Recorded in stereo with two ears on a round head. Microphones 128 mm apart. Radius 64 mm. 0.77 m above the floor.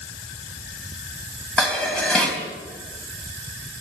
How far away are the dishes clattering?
About 4 m.